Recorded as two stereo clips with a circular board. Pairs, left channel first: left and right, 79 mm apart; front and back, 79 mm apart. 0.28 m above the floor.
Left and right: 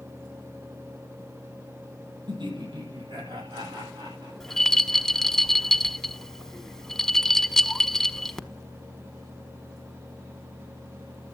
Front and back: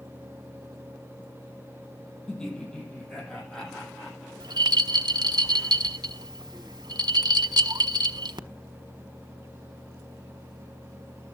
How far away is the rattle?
About 1.1 m.